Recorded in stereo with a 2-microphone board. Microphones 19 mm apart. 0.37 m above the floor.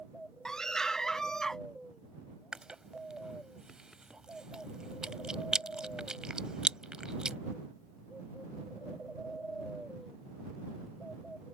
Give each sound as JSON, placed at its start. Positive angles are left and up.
{"t": 0.5, "sound": "a scream", "side_deg": 35}
{"t": 2.5, "sound": "chewing", "side_deg": -45}